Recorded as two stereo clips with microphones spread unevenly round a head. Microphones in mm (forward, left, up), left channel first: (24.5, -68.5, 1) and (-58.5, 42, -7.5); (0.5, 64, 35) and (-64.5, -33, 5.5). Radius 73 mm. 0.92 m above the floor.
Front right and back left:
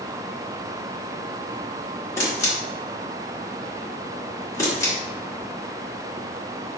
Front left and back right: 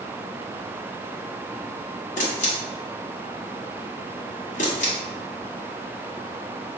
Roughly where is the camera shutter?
Ahead.